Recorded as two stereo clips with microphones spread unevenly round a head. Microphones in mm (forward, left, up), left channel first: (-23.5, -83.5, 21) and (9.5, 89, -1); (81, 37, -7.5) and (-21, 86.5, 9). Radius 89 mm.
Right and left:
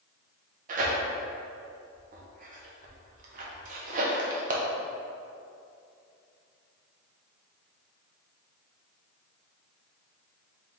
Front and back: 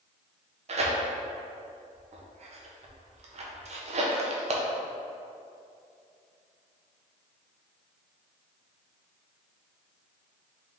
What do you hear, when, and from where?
0.7 s tearing paper: 125° left, 0.7 m